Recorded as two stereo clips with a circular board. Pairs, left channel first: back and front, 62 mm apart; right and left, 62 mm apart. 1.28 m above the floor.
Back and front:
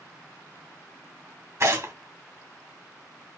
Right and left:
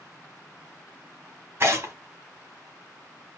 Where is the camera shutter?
I don't hear a camera shutter.